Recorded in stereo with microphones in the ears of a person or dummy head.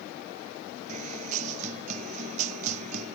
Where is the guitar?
40° right (ahead or behind).